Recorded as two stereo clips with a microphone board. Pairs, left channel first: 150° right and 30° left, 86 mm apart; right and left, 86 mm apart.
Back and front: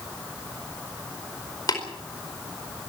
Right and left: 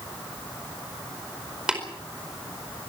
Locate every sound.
1.7 s tapping: 170° left, 4.5 m